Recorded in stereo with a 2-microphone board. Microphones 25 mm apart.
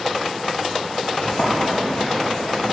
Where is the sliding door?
70° left (ahead or behind), 1.4 m.